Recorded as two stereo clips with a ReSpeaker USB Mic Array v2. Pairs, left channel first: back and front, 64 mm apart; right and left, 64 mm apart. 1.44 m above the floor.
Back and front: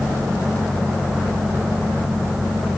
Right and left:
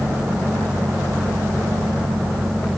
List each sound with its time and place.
Only background noise.